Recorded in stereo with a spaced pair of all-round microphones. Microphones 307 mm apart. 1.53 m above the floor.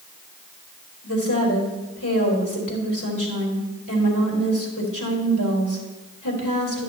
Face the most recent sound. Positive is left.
turn(degrees=85)